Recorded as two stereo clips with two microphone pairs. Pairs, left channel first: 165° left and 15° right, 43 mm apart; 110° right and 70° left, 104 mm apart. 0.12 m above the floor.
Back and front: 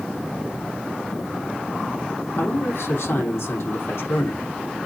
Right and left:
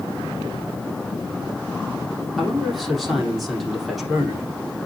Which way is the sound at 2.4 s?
160° left.